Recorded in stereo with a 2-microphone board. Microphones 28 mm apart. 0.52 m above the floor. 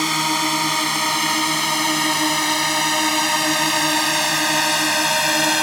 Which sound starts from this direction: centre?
A drone, at 0.0 s.